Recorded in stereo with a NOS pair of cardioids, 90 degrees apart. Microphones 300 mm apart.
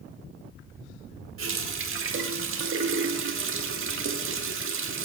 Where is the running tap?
45° right, 1.8 m.